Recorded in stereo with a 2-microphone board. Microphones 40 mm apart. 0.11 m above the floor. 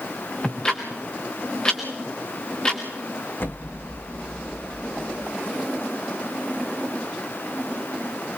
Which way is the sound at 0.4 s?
20° left (ahead or behind).